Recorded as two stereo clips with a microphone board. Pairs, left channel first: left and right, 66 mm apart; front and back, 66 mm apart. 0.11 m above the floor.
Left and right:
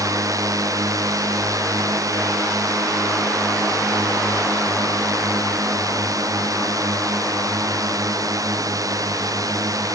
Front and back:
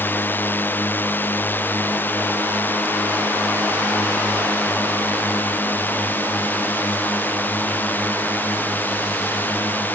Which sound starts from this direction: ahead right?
A drone, at 0.0 s.